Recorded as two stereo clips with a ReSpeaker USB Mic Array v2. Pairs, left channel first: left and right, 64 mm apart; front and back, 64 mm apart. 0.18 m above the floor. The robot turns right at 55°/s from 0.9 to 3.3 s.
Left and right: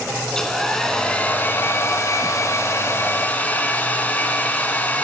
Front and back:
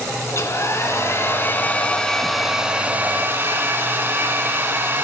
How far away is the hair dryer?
About 1.0 m.